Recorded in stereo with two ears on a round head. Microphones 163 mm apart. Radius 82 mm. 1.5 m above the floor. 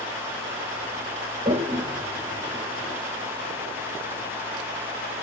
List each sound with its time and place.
1.4 s a toilet flushing: 35° right (ahead or behind), 2 m